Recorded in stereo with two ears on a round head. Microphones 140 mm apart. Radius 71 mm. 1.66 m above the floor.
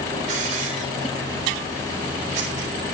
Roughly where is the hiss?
Right.